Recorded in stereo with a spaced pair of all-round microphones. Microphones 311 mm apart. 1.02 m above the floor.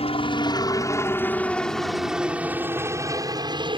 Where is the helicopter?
20° left (ahead or behind); by 3.8 s 15° right (ahead or behind).